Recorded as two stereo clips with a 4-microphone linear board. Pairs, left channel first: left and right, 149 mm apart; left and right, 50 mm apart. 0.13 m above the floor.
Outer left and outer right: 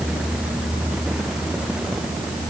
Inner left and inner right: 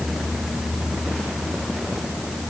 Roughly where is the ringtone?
No ringtone in this recording.